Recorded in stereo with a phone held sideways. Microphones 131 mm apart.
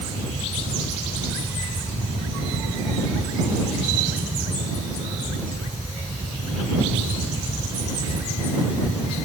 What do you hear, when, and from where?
0.0 s a fan: 70° right (ahead or behind)